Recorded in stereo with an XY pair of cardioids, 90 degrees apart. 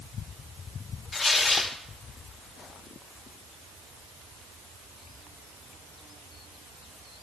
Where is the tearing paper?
35° left, 2 m.